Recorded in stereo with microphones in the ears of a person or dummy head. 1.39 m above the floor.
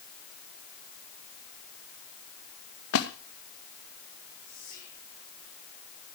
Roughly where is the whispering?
Left.